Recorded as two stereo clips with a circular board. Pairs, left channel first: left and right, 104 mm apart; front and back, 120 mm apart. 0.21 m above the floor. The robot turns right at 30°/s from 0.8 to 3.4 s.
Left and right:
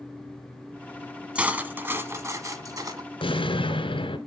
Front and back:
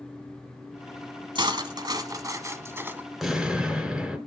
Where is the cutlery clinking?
165° right, 1.0 m; by 3.1 s 110° right, 1.0 m.